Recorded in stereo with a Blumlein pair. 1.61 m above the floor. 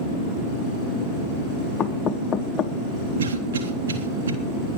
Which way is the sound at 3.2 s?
65° right.